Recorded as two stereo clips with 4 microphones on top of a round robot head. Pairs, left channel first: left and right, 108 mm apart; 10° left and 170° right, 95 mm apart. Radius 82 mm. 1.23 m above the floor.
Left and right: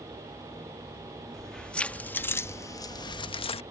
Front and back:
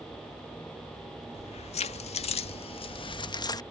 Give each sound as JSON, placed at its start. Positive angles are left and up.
{"t": 1.3, "sound": "keys jangling", "azimuth_deg": 5}